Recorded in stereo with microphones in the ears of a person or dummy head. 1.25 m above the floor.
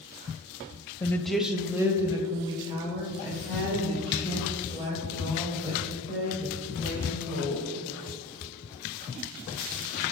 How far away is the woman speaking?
About 0.7 m.